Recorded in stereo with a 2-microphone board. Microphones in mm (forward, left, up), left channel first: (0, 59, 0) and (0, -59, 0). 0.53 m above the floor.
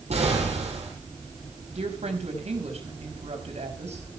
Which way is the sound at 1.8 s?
75° right (ahead or behind).